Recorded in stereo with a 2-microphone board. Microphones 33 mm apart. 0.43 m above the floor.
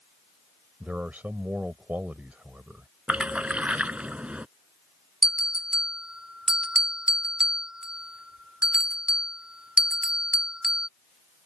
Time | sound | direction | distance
0.8 | a man speaking | 60° right (ahead or behind) | ?
3.1 | a splash | 40° right (ahead or behind) | ?
5.2 | a bell | 25° right (ahead or behind) | ?